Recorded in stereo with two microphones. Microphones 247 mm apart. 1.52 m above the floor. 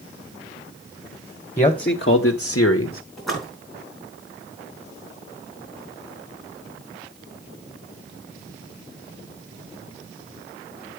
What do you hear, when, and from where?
1.6 s a man speaking: 25° left (ahead or behind), 1.1 m; by 3.0 s 60° left (ahead or behind), 1.2 m
3.2 s a splash: centre (ahead or behind), 4 m